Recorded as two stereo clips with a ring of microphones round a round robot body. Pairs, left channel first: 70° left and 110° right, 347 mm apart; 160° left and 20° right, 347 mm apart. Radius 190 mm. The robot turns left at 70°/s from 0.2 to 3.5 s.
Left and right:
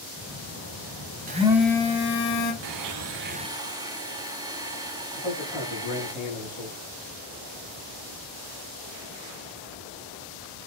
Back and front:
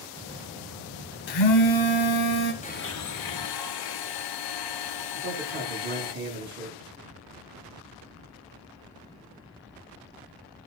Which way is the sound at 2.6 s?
130° right.